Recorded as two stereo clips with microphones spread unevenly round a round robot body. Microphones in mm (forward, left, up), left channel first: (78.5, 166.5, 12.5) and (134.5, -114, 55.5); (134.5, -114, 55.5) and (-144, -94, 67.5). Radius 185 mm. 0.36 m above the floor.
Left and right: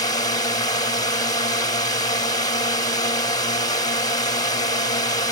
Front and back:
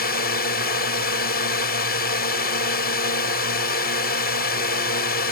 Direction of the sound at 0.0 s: 40° left.